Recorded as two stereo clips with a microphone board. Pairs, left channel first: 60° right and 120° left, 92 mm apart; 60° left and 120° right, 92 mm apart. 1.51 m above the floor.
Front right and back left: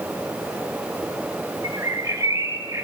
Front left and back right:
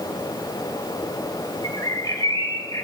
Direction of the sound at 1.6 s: 85° left.